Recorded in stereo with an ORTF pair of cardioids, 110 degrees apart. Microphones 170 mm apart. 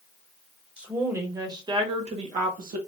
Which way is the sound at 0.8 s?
5° right.